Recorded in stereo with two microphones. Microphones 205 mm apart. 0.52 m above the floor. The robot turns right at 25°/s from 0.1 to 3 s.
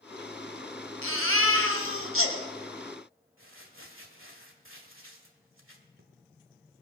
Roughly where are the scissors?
No scissors in this recording.